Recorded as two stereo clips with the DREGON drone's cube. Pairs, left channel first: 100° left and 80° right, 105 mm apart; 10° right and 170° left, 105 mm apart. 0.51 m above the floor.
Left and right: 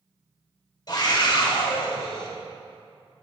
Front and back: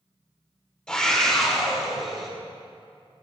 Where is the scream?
70° left, 2 m; by 2.3 s 80° left, 3.5 m.